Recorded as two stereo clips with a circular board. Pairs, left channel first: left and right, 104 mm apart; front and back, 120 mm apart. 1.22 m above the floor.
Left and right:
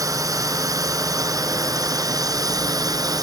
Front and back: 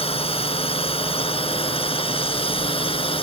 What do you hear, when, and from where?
0.0 s a drone: 35° right; by 3.2 s 40° right